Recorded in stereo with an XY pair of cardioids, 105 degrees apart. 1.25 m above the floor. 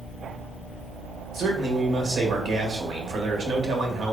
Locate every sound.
1.3 s a man speaking: 60° right, 1.4 m